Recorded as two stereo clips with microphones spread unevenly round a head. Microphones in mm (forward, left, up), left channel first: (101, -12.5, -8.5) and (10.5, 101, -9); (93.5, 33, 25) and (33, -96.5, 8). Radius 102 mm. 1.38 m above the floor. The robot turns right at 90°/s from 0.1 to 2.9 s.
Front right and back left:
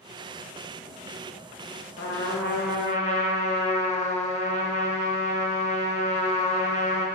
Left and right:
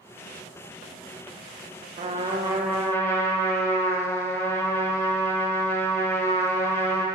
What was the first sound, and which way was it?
A trumpet, 95° right.